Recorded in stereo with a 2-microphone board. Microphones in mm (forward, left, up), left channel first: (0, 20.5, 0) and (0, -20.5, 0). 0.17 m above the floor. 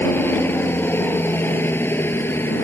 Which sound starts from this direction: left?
A helicopter, at 0.0 s.